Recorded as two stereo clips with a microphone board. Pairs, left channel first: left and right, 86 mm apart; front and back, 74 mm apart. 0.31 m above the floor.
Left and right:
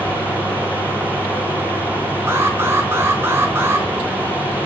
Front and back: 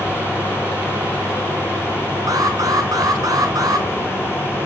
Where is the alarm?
150° right, 3.5 m.